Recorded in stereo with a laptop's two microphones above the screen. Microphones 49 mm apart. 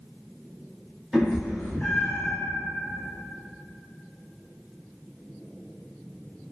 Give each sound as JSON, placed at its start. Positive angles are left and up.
{"t": 1.1, "sound": "a cat meowing", "side_deg": 0, "distance_m": 1.1}